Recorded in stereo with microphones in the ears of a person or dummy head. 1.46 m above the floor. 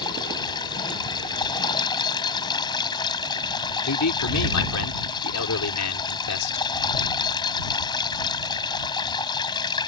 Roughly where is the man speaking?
Left.